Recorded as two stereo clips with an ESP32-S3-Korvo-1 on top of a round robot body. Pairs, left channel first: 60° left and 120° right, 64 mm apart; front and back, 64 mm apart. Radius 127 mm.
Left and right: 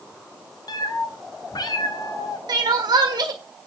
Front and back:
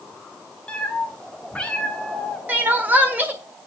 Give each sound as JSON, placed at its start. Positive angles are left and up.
{"t": 0.7, "sound": "a cat meowing", "azimuth_deg": 75, "distance_m": 1.3}
{"t": 2.5, "sound": "crying", "azimuth_deg": -115, "distance_m": 1.4}